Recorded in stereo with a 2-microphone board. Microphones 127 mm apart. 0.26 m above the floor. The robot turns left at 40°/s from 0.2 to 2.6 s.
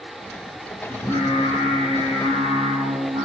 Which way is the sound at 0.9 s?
40° left.